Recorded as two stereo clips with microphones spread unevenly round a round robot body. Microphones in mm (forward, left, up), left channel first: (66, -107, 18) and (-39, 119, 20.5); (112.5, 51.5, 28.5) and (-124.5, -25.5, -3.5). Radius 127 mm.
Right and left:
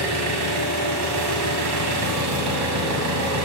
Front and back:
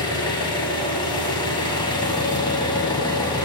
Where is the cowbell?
I don't hear a cowbell.